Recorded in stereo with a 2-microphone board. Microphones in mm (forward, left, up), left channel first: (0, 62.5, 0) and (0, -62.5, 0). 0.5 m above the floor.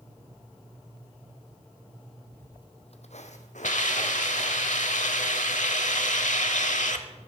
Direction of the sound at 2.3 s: 10° left (ahead or behind).